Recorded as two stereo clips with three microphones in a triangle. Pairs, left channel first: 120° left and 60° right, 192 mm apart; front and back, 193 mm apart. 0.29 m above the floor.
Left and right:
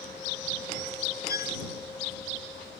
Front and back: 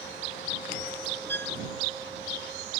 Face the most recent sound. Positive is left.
turn(degrees=80)